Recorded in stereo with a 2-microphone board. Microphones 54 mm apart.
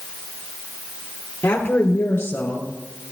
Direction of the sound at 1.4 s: 40° left (ahead or behind).